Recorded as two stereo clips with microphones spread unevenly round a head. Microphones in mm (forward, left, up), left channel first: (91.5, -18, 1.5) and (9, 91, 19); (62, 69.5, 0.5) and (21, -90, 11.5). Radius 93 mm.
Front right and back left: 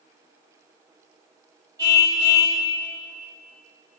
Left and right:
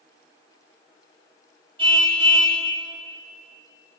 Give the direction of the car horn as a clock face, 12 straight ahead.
6 o'clock.